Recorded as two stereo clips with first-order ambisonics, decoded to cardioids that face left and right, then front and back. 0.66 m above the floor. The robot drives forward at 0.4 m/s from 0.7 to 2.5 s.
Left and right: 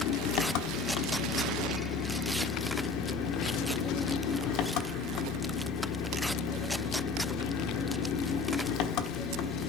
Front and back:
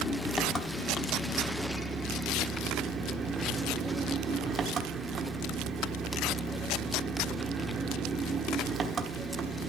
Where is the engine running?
75° left, 1.1 m; by 9.7 s 115° left, 1.2 m.